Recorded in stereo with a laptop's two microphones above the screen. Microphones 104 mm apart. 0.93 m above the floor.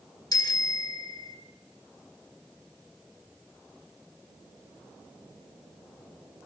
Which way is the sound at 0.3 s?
45° left (ahead or behind).